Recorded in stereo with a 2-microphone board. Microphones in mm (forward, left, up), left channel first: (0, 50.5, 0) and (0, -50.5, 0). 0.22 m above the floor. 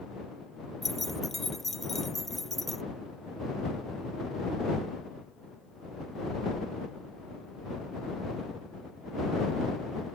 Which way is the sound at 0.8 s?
Centre (ahead or behind).